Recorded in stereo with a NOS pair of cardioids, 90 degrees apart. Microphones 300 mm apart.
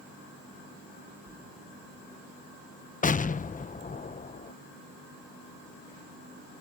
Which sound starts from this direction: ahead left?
An explosion, at 3.0 s.